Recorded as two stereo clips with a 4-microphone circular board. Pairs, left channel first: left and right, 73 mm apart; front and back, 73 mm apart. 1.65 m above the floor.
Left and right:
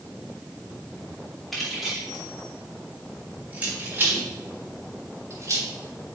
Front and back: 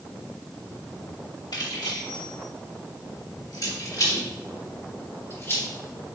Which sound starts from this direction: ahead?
Keys jangling, at 1.5 s.